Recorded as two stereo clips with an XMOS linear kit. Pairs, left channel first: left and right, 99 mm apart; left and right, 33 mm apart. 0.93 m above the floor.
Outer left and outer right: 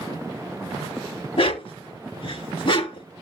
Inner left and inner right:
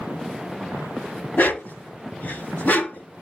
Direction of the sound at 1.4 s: 60° left (ahead or behind).